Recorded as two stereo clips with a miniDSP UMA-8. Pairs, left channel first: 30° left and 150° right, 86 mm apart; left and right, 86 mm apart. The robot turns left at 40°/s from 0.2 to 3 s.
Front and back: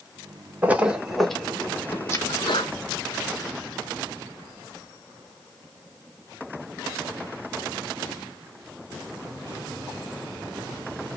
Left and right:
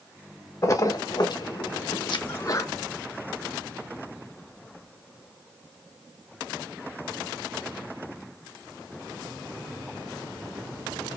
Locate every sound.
0.6 s a splash: 145° left, 1.0 m; by 2.2 s 80° left, 1.0 m
2.3 s a sneeze: 50° left, 1.3 m; by 2.7 s 35° left, 1.3 m